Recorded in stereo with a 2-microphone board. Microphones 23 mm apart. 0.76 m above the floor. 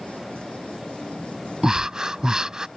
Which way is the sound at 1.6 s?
35° right (ahead or behind).